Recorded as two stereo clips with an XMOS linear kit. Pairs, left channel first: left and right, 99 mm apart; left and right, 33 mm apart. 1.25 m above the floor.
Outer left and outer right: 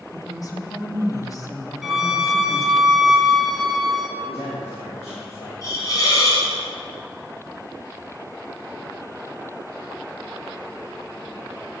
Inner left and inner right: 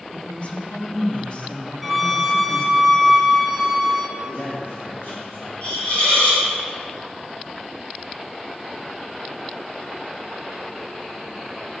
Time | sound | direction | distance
0.1 | a woman speaking | 35° left (ahead or behind) | 1.3 m
1.8 | a violin | 5° right (ahead or behind) | 0.7 m
4.2 | a man speaking | 85° left | 1.6 m
5.6 | a hiss | 35° left (ahead or behind) | 2.5 m